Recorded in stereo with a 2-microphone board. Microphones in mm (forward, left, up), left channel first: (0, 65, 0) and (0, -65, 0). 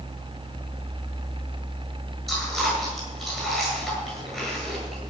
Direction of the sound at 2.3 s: 5° left (ahead or behind).